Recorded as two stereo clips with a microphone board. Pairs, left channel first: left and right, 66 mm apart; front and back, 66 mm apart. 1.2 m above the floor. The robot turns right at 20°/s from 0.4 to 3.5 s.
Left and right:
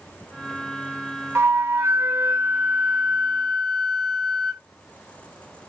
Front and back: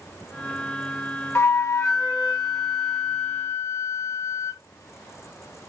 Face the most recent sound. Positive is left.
turn(degrees=0)